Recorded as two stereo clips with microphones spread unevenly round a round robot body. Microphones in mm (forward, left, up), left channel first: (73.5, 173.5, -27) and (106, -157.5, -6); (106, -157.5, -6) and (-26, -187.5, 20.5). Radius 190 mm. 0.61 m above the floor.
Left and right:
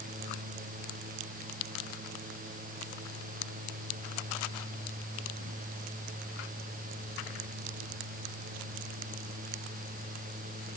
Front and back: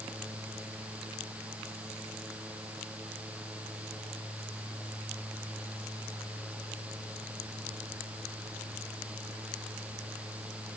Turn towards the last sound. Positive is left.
No sound to turn to.